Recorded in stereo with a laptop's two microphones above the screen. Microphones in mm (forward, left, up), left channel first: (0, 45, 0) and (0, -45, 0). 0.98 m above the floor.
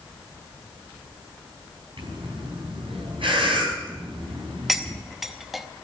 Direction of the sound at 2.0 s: 85° right.